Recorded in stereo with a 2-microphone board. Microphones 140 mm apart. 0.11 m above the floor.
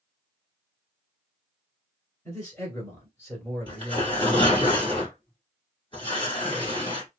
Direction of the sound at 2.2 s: 20° left (ahead or behind).